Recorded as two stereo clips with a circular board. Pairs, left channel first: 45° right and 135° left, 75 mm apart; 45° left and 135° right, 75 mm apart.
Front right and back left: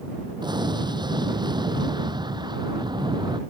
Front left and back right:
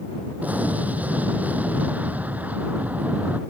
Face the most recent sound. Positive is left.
turn(degrees=155)